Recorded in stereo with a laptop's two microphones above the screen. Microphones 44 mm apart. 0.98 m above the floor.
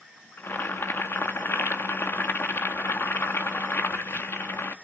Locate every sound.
0.4 s boiling: 70° left (ahead or behind), 1.5 m